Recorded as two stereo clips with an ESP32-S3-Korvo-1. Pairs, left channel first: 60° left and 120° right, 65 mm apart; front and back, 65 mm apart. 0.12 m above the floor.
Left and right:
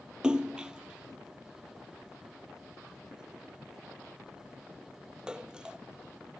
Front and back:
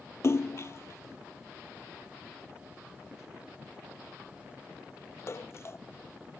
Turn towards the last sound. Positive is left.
turn(degrees=-45)